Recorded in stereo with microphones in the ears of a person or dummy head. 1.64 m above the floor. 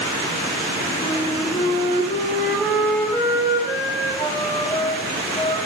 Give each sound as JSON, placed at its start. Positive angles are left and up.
{"t": 1.0, "sound": "a flute", "side_deg": 20, "distance_m": 4.5}